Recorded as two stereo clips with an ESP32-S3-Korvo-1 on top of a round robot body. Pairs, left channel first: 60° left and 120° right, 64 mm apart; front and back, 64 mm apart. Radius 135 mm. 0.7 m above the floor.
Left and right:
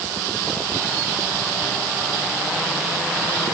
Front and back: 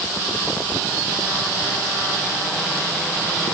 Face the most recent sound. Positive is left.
No sound to turn to.